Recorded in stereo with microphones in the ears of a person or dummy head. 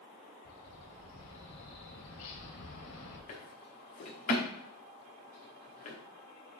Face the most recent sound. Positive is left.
turn(degrees=40)  # may be behind; listen again after turning